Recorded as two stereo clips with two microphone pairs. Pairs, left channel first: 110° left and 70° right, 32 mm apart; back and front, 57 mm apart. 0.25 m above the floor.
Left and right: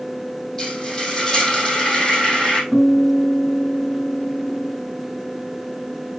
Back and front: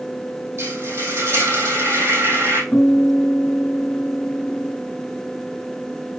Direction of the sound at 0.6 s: 35° left.